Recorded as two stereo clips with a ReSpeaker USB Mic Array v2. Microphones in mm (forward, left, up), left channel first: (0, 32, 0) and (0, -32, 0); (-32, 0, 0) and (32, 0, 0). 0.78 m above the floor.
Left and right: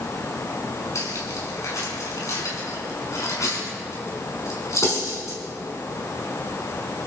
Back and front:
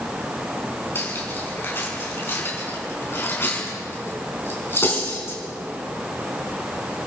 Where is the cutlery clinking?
130° left, 5.5 m.